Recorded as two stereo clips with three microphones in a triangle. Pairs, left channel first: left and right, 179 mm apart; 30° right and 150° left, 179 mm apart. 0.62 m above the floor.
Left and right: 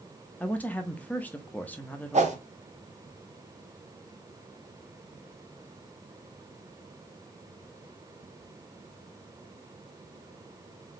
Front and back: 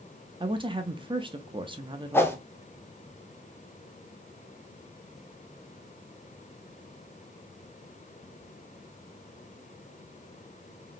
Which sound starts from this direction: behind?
A woman speaking, at 0.4 s.